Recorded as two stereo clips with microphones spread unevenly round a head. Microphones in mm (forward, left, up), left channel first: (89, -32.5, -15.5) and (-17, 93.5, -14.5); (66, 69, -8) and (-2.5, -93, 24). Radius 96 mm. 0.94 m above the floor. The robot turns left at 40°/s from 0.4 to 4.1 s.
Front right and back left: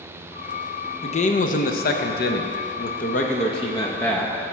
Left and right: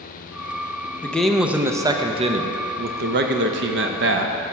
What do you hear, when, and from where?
1.0 s a man speaking: 5° right, 0.7 m; by 4.4 s 130° right, 0.7 m